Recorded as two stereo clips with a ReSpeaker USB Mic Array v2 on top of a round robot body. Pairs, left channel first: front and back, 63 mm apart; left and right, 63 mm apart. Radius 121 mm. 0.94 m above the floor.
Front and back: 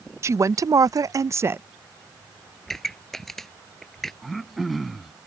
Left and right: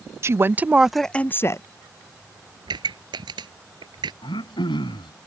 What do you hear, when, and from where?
0.2 s a woman speaking: 140° right; by 1.6 s 125° left
2.7 s a pop: 85° right
4.2 s throat clearing: 90° left